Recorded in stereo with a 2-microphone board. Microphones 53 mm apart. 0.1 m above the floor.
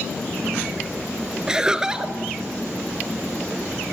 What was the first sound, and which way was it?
Laughter, 15° right (ahead or behind).